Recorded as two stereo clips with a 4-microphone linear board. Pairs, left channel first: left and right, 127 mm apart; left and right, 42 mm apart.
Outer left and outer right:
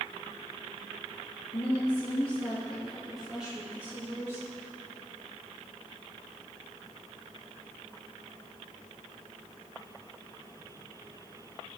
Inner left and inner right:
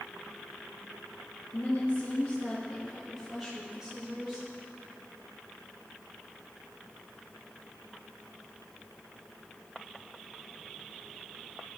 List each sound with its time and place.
1.5 s a woman speaking: 40° left (ahead or behind), 1.7 m; by 4.5 s 20° right (ahead or behind), 2.5 m